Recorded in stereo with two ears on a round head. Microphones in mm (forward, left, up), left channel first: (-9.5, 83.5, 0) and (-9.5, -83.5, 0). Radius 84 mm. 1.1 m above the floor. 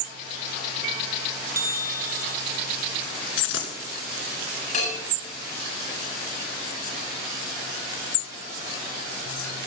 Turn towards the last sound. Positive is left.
turn(degrees=40)  # may be behind; listen again after turning